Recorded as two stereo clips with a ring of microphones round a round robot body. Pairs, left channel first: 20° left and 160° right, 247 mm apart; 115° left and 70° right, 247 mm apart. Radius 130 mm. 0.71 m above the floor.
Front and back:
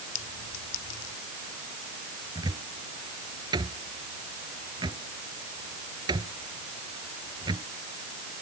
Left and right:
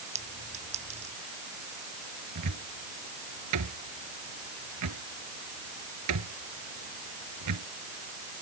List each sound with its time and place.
0.1 s a clink: straight ahead
2.4 s a cupboard door: 85° right